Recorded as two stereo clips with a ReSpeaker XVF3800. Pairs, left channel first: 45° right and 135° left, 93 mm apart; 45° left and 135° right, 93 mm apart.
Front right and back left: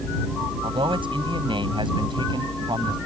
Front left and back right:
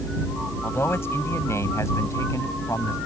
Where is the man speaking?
110° left; by 3.0 s 100° left.